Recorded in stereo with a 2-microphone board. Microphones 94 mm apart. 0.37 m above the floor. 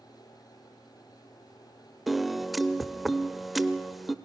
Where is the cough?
I don't hear a cough.